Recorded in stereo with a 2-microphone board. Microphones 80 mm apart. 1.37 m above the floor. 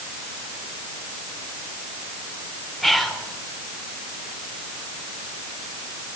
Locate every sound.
2.8 s whispering: centre (ahead or behind), 1.4 m